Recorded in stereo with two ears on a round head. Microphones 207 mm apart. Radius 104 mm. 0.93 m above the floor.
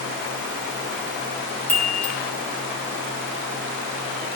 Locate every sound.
1.7 s a chime: 10° left (ahead or behind), 1.2 m